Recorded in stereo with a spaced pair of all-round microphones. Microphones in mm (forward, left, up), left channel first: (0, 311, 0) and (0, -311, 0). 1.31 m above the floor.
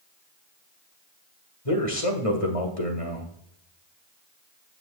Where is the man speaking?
60° left (ahead or behind), 1.9 m.